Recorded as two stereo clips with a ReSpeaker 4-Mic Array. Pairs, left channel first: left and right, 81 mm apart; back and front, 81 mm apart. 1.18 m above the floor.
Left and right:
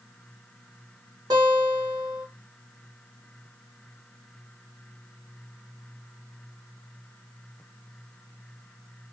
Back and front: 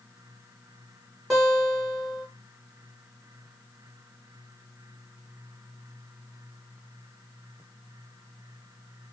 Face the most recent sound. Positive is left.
turn(degrees=-90)